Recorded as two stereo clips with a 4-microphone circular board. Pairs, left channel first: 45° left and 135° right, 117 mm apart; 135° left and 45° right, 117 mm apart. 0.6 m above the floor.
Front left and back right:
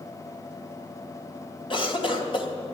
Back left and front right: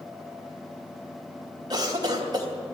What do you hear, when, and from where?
1.7 s a cough: 5° left, 2.5 m